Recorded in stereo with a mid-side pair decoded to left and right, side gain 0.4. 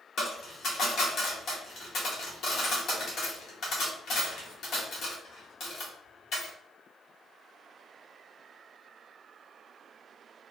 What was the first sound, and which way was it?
A dropped coin, 65° left.